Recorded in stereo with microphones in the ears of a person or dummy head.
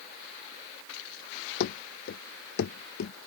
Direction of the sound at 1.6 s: 55° left (ahead or behind).